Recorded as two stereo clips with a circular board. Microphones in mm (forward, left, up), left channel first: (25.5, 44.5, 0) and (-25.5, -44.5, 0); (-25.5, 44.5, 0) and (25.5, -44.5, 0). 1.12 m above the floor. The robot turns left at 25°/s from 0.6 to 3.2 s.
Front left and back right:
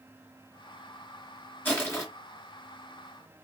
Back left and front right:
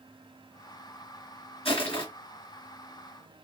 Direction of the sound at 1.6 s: 125° left.